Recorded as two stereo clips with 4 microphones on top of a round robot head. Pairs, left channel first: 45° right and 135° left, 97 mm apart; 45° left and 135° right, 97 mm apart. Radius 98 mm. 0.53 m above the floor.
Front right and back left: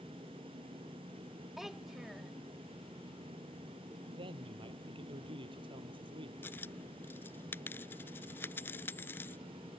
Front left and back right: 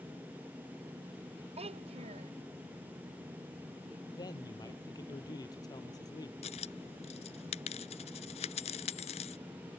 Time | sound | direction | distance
1.6 | a child speaking | 140° right | ?
4.0 | a man speaking | 95° left | ?
6.4 | a dropped coin | 25° left | ?